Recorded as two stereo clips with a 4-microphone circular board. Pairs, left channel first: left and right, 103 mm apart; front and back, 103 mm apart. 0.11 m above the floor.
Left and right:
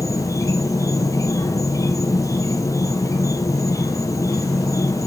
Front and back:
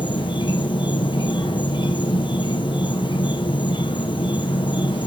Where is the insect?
35° left, 1.6 m.